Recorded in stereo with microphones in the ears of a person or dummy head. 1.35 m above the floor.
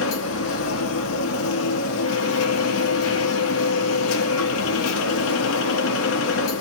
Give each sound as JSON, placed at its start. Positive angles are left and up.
{"t": 0.0, "sound": "a machine running", "side_deg": 75, "distance_m": 0.8}